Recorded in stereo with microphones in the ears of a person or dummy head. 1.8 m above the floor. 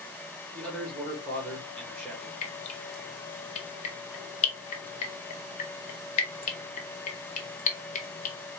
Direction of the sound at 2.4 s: 40° left (ahead or behind).